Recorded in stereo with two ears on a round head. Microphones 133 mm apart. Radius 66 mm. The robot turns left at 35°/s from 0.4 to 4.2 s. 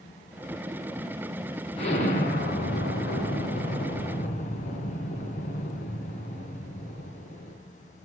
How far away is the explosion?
About 3 m.